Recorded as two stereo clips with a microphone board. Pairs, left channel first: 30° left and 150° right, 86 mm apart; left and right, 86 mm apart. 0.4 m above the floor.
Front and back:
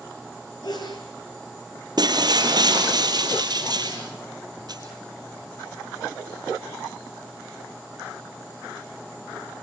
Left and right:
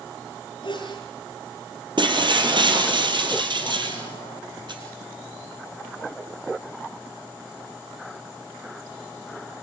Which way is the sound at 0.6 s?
65° left.